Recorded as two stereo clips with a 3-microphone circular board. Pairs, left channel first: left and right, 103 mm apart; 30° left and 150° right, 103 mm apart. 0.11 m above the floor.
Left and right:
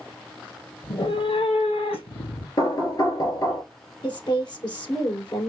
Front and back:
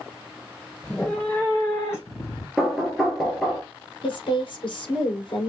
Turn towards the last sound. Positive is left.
turn(degrees=55)